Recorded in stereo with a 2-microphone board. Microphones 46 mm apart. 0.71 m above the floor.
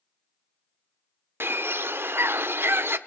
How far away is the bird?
About 0.7 m.